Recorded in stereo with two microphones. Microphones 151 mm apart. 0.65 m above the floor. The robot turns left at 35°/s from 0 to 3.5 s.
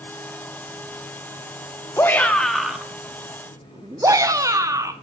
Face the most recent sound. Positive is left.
turn(degrees=-30)